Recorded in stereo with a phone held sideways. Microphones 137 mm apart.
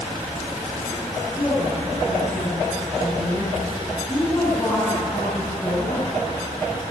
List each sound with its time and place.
1.4 s a woman speaking: 5° left (ahead or behind), 6.5 m